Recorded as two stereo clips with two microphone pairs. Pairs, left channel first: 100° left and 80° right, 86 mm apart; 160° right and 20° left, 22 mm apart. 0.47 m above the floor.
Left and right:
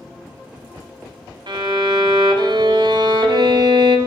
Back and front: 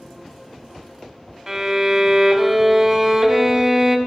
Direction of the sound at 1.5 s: 50° right.